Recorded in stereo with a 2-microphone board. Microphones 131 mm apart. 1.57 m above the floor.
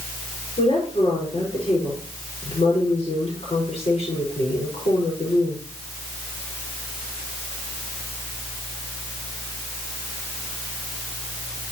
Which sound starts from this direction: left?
A woman speaking, at 0.6 s.